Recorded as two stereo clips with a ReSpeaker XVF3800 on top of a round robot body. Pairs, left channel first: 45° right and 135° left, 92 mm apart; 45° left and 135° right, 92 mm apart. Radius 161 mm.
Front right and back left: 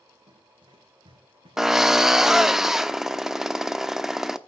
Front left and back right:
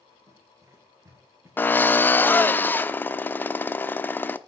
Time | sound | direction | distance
0.3 | running footsteps | 165° left | 8 m
1.6 | a drill | 60° left | 1.3 m